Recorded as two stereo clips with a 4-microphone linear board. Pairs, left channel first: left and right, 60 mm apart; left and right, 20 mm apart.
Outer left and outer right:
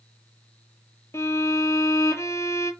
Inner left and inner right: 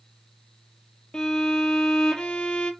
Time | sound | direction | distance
1.1 | a violin | 50° left (ahead or behind) | 0.7 m